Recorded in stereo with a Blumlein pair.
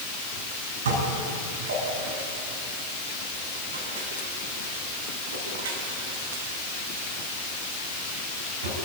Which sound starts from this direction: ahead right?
Dishes clattering, at 0.8 s.